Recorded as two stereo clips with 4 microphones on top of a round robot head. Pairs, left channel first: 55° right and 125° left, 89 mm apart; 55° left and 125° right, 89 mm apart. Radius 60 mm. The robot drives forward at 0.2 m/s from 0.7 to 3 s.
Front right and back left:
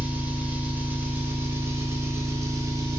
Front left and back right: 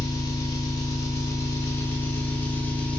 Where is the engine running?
65° left, 0.8 m; by 3.0 s 120° left, 0.8 m.